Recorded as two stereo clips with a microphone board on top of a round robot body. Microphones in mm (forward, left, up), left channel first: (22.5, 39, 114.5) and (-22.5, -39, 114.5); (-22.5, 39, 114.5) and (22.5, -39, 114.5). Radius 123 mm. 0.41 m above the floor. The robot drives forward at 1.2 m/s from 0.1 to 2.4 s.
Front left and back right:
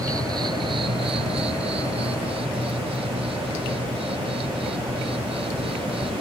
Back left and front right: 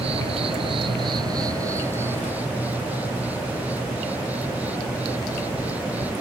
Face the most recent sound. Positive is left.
turn(degrees=-130)